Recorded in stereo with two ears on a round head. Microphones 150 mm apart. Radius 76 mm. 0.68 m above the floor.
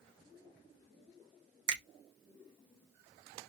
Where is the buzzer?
I don't hear a buzzer.